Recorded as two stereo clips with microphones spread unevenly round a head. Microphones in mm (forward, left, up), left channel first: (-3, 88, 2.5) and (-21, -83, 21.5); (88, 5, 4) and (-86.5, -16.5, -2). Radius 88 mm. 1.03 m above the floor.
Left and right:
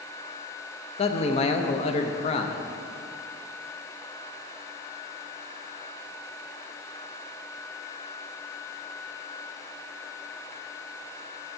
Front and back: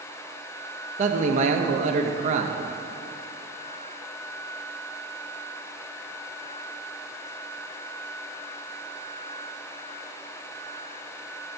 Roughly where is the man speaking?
Behind left.